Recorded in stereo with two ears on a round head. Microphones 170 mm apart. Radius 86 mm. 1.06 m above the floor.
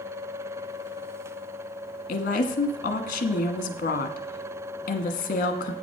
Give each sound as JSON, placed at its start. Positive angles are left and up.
{"t": 2.1, "sound": "a woman speaking", "side_deg": 50, "distance_m": 1.4}